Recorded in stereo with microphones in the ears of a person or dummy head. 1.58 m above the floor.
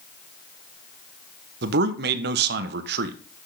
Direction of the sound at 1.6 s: 65° right (ahead or behind).